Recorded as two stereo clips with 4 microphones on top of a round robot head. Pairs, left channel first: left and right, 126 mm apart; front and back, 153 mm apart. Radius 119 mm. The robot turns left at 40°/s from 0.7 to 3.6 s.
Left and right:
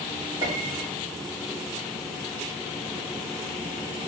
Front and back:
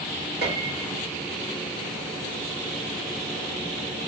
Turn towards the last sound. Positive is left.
turn(degrees=90)